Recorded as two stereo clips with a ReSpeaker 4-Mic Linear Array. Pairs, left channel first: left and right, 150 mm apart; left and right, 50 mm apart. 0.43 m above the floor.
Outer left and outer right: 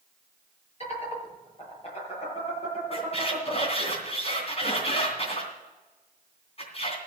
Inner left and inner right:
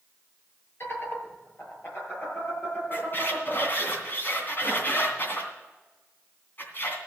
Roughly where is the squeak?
Left.